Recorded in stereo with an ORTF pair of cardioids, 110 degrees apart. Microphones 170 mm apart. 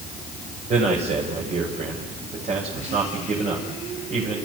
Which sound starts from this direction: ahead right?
A man speaking, at 0.7 s.